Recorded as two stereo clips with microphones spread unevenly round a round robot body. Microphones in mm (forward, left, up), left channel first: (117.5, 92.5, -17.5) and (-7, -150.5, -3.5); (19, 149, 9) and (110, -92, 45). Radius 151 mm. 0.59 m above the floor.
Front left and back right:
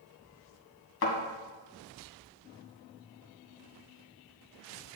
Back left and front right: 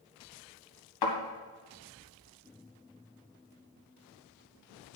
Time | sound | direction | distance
1.0 | a thud | 115° left | 2 m